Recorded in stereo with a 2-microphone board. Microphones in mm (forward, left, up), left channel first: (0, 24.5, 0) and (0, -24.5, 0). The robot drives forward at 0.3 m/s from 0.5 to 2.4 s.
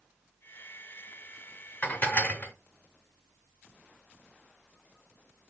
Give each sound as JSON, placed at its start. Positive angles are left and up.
{"t": 1.8, "sound": "dishes clattering", "side_deg": 35, "distance_m": 0.7}